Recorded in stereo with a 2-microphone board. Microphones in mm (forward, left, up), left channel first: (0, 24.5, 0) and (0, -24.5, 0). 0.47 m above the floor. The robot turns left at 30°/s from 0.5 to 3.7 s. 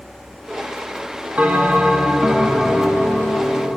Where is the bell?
150° right, 1.0 m; by 3.8 s 140° left, 1.0 m.